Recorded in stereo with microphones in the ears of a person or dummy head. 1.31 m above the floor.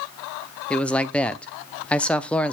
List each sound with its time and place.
0.7 s a man speaking: 5° left (ahead or behind), 0.5 m